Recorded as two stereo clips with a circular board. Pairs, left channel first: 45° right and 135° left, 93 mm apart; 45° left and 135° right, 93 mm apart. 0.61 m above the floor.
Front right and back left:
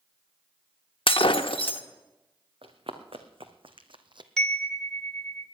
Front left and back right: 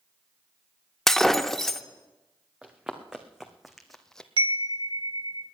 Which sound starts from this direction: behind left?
Running footsteps, at 2.6 s.